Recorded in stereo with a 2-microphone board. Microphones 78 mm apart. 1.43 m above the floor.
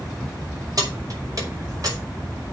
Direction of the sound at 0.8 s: 50° right (ahead or behind).